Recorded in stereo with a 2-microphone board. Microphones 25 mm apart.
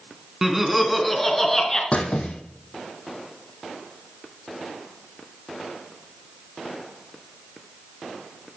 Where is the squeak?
55° left (ahead or behind), 1.2 m.